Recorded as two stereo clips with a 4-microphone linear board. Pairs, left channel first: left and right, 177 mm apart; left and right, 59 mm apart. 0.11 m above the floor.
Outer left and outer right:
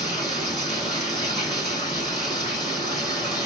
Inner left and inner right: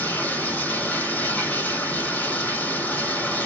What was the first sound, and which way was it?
Running water, 25° left (ahead or behind).